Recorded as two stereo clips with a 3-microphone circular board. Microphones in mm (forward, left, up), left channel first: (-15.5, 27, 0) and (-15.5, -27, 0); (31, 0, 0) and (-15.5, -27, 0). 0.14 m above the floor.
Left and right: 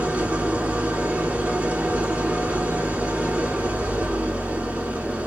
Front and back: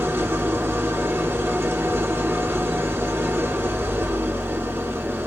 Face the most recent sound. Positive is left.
turn(degrees=-140)